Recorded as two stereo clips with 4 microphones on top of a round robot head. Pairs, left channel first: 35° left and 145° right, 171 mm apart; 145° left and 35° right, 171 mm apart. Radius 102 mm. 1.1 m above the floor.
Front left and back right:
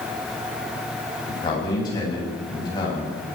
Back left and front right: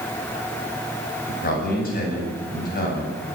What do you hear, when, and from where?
1.3 s a man speaking: 105° left, 9.5 m